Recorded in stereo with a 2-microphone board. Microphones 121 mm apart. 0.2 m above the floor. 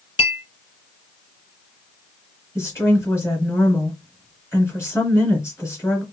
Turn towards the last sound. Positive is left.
turn(degrees=20)  # may be behind; listen again after turning